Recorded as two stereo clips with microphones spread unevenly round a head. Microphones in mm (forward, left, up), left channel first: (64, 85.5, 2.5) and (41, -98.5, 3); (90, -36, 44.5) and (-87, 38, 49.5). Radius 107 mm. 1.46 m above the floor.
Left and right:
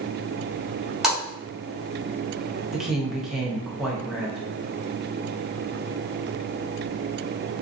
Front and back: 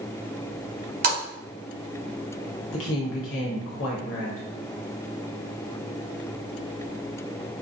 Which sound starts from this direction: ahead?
A woman speaking, at 2.7 s.